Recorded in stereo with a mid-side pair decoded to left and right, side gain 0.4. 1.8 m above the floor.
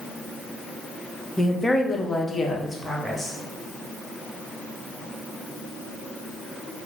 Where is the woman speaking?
20° left, 0.8 m.